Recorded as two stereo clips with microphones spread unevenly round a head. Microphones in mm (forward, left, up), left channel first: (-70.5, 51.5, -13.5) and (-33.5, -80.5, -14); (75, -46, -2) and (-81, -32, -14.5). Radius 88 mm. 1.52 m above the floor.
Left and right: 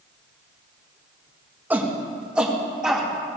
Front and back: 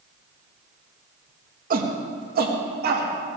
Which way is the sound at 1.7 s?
150° right.